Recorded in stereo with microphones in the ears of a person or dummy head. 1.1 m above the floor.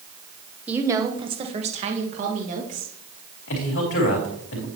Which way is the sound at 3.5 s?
65° left (ahead or behind).